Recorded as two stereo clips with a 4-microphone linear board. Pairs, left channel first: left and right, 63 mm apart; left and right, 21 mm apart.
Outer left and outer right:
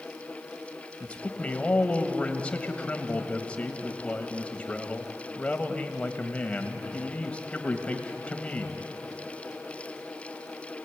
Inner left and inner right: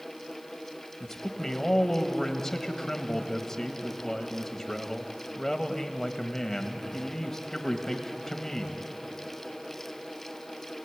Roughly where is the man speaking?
Centre.